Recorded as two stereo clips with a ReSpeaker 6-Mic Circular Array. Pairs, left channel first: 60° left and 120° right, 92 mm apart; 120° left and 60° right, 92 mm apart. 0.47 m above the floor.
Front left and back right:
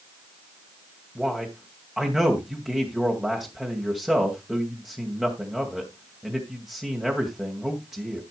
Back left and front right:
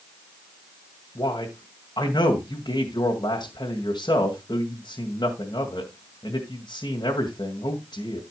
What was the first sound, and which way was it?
A man speaking, 155° left.